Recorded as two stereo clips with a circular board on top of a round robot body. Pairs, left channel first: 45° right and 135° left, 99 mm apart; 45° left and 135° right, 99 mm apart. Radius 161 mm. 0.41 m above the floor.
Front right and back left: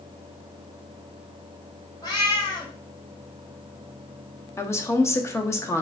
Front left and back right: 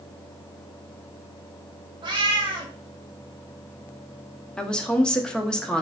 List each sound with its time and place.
2.0 s a cat meowing: 95° right, 1.4 m
4.6 s a woman speaking: 30° right, 0.9 m